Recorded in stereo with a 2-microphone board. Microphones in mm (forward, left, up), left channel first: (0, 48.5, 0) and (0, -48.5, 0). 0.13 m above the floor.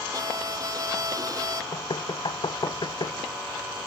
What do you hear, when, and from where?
0.1 s a violin: 40° right (ahead or behind)
1.7 s knocking: 55° left (ahead or behind)